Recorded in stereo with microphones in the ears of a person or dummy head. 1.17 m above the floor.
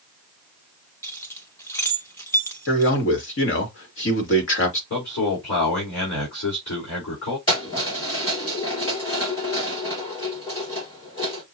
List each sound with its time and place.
1.0 s keys jangling: 25° left (ahead or behind), 0.6 m
2.7 s a man speaking: 70° left (ahead or behind), 1.7 m
4.9 s a man speaking: 70° left (ahead or behind), 4 m
7.5 s keys jangling: 40° left (ahead or behind), 2.5 m